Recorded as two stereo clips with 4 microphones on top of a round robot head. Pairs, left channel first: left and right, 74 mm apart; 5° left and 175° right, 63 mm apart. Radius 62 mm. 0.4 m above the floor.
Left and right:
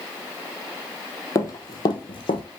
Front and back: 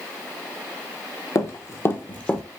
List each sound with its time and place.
1.4 s running footsteps: 45° left, 0.9 m; by 2.4 s 85° left, 0.7 m